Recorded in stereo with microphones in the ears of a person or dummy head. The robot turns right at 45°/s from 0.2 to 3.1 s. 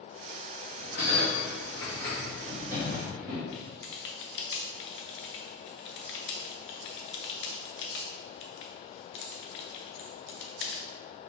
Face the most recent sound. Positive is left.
turn(degrees=55)  # may be behind; listen again after turning